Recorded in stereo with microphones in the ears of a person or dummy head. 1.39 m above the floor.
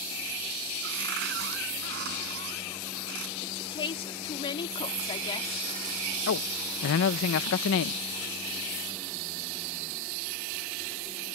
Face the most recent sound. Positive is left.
turn(degrees=70)  # may be behind; listen again after turning